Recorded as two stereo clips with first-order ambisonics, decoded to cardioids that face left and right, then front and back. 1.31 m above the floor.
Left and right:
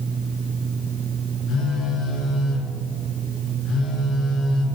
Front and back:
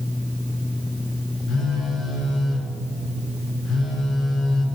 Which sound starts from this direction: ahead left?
A phone buzzing, at 1.5 s.